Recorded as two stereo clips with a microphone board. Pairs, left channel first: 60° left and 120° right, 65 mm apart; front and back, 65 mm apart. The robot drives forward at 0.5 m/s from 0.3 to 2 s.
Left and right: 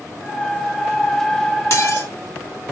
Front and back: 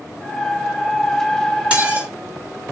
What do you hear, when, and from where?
1.7 s dishes clattering: 110° left, 2.5 m